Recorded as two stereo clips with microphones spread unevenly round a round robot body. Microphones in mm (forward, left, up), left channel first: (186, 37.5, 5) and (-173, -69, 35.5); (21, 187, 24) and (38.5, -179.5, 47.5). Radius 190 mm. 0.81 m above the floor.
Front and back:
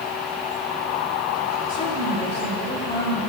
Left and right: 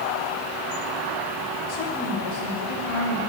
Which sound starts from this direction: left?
A woman speaking, at 1.7 s.